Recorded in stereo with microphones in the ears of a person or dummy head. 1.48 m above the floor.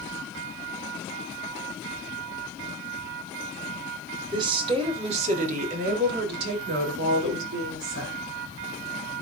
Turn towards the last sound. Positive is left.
turn(degrees=-80)